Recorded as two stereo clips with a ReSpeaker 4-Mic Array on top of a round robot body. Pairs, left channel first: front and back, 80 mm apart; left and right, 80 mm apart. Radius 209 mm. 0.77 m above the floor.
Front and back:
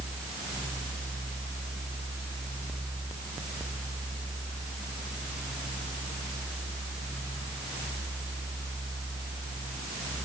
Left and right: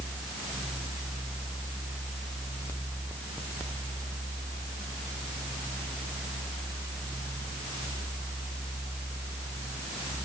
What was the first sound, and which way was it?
Only background noise.